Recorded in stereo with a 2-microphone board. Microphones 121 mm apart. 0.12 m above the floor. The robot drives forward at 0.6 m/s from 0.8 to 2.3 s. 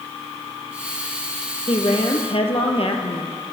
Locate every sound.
1.7 s a woman speaking: 50° left (ahead or behind), 3 m; by 3.3 s 55° left (ahead or behind), 3 m